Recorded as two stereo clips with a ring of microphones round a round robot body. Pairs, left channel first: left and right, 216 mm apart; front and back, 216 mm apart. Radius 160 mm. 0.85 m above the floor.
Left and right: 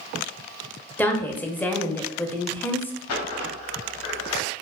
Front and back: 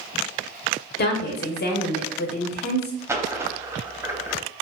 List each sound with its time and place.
1.0 s a woman speaking: 10° left, 0.6 m
3.1 s a dropped coin: 100° left, 0.5 m